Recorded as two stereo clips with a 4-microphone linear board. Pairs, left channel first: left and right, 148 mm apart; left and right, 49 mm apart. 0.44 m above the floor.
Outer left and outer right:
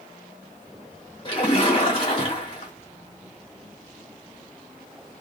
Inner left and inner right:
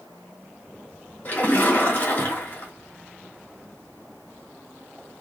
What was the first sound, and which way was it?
A splash, 40° left (ahead or behind).